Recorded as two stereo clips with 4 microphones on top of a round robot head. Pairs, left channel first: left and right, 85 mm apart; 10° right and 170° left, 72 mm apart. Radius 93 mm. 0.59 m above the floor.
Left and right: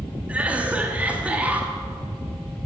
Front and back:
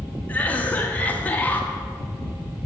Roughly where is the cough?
Ahead right.